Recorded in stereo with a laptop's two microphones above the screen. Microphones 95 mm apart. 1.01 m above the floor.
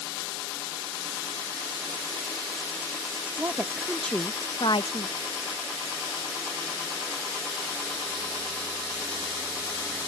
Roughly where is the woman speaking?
Right.